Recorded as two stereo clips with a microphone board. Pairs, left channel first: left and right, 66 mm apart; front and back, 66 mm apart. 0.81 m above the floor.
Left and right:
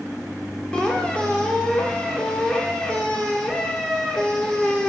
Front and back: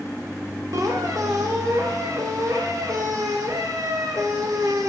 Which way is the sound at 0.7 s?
165° left.